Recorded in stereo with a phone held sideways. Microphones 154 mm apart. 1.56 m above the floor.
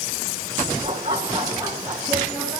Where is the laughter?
40° right (ahead or behind), 3.5 m; by 2.6 s 5° right (ahead or behind), 2.5 m.